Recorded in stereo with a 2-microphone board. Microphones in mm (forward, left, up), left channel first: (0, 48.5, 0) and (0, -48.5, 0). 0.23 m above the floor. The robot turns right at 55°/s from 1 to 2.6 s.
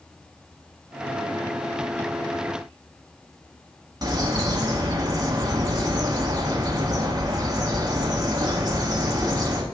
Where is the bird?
45° right (ahead or behind), 1.1 m.